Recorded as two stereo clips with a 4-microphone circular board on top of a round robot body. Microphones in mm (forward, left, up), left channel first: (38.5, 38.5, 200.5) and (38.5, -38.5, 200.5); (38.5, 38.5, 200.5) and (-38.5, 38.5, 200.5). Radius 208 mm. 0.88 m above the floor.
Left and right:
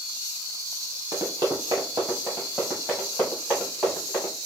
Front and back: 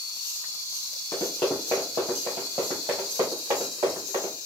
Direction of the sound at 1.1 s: 50° right.